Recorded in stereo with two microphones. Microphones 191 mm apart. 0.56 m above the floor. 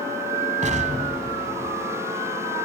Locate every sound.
0.6 s an explosion: 40° right (ahead or behind), 2 m